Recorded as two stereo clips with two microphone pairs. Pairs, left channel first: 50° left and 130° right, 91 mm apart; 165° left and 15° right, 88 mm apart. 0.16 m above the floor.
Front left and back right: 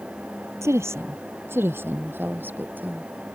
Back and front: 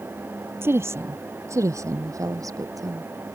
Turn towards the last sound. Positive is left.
turn(degrees=-60)